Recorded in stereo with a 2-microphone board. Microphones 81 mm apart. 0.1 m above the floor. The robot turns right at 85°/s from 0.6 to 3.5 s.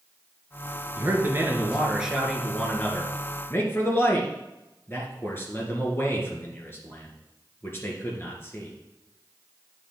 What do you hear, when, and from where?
0.9 s a man speaking: 25° right (ahead or behind), 1.8 m; by 8.7 s 30° left (ahead or behind), 1.8 m